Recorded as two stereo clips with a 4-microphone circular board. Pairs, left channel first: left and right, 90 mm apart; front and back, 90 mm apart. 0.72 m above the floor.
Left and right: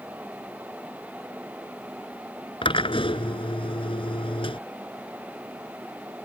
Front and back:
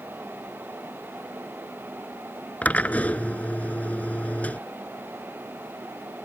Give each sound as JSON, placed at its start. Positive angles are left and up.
{"t": 2.6, "sound": "a drill", "azimuth_deg": 75}